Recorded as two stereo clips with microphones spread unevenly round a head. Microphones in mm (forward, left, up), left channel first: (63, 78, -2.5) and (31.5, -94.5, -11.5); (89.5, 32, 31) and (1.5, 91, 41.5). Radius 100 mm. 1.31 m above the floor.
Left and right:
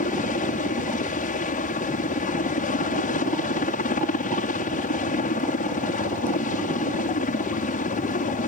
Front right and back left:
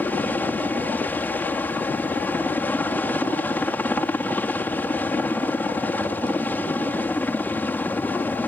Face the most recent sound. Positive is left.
turn(degrees=40)